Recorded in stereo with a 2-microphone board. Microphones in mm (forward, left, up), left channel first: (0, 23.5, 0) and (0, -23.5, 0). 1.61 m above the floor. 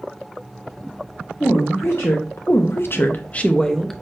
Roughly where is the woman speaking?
Left.